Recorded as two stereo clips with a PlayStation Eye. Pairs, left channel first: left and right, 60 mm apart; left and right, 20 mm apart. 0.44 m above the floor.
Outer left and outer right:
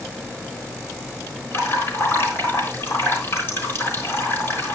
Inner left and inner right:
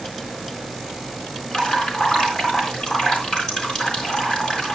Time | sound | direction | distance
1.5 | dripping | 45° left (ahead or behind) | 4 m